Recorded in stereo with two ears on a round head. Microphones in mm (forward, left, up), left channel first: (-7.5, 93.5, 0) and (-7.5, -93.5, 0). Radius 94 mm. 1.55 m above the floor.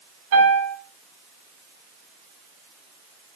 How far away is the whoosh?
I don't hear a whoosh.